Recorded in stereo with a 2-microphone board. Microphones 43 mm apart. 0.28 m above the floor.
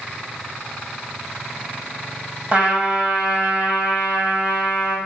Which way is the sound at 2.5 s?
35° right (ahead or behind).